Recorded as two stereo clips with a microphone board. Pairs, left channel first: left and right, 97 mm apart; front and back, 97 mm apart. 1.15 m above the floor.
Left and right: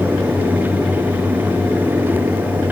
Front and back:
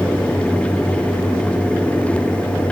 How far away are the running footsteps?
No running footsteps in this recording.